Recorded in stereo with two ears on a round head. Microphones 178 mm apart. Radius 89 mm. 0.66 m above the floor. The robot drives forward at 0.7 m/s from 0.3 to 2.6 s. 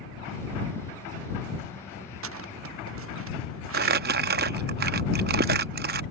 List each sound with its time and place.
2.2 s footsteps: 75° right (ahead or behind); by 4.0 s 70° right (ahead or behind)
3.7 s crumpling: 50° right (ahead or behind)